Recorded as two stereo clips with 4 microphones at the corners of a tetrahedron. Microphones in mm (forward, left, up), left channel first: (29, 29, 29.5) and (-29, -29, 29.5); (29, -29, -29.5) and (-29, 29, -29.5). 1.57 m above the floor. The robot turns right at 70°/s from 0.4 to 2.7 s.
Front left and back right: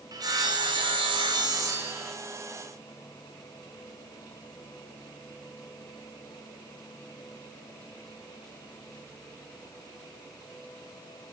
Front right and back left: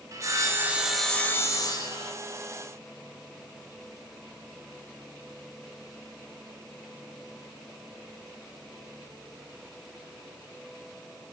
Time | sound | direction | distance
0.1 | sawing | 175° right | 1.0 m